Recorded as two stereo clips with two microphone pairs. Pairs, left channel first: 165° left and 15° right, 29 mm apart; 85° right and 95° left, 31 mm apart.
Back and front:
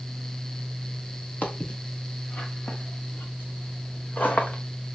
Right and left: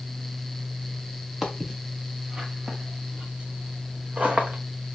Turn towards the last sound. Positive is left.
turn(degrees=135)